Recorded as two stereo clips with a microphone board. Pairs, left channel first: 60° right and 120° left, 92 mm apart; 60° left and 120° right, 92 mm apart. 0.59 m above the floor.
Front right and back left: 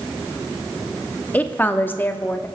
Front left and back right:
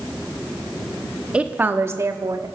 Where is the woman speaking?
75° right, 0.9 m; by 2.5 s 115° right, 1.1 m.